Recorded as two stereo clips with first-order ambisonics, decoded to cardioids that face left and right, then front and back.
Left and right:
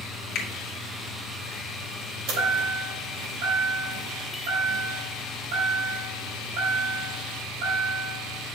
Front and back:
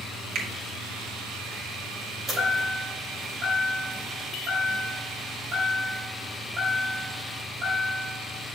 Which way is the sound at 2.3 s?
110° right.